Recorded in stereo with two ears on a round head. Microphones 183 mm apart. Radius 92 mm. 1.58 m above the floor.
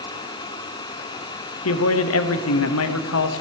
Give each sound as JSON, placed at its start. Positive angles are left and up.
{"t": 1.6, "sound": "a man speaking", "side_deg": 75, "distance_m": 0.9}